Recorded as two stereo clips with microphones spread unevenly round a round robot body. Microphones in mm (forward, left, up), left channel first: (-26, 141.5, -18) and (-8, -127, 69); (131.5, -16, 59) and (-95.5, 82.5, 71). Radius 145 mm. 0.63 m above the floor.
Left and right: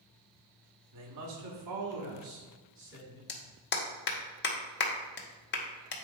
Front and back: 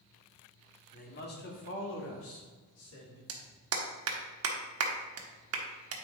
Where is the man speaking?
70° right, 1.6 m; by 3.2 s 30° right, 3 m.